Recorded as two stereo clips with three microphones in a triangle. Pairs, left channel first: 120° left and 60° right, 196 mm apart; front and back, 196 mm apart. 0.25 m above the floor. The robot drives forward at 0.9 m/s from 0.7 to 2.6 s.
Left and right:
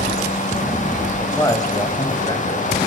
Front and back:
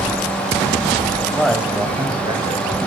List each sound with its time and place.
1.2 s a man speaking: 60° left, 1.2 m; by 2.8 s 160° left, 1.6 m